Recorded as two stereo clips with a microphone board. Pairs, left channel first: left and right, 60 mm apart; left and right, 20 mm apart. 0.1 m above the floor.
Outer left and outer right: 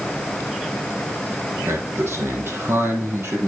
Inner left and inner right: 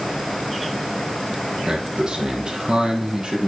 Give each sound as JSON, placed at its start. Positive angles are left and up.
{"t": 1.7, "sound": "a man speaking", "side_deg": -40, "distance_m": 3.5}